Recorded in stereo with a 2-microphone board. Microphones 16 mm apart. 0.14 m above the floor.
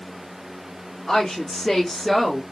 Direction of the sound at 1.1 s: 40° left (ahead or behind).